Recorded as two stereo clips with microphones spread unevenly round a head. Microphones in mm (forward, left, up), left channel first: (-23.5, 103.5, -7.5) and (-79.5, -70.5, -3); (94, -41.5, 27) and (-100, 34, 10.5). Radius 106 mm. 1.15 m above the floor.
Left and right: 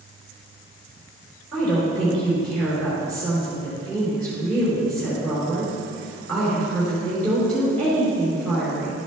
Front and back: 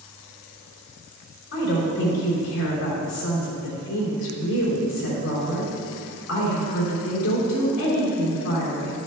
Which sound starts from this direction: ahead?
A woman speaking, at 1.5 s.